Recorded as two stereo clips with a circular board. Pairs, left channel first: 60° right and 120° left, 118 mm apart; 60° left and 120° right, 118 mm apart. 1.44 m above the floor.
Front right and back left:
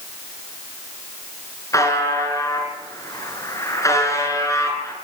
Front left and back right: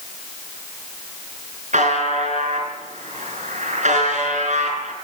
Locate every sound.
1.7 s a buzzer: 125° right, 6 m